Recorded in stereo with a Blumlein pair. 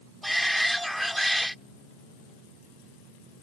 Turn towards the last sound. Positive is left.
turn(degrees=0)